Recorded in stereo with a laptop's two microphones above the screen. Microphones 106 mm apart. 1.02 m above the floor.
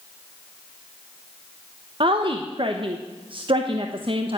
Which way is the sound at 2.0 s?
50° right (ahead or behind).